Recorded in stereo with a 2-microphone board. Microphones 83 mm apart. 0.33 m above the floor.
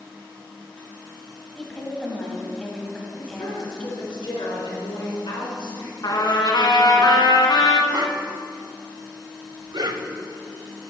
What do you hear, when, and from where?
1.6 s a woman speaking: 10° left (ahead or behind), 2 m
3.2 s a woman speaking: 75° left (ahead or behind), 4 m
6.0 s a trumpet: 55° left (ahead or behind), 1.0 m
7.9 s a whoosh: 55° right (ahead or behind), 0.6 m